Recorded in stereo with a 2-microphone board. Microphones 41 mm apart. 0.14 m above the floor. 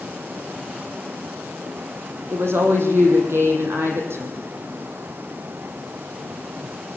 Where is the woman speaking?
65° right (ahead or behind), 4.5 m.